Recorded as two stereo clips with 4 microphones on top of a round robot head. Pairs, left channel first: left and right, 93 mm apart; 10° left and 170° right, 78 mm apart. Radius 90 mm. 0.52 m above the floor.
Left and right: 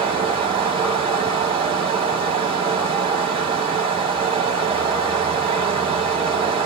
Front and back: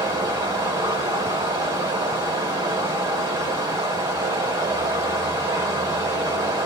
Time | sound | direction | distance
0.0 | running water | 125° right | 2 m